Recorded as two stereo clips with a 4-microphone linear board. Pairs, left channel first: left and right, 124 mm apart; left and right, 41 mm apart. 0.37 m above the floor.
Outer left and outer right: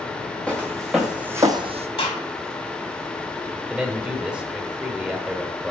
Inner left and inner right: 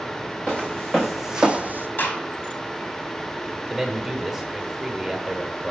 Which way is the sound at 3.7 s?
10° right (ahead or behind).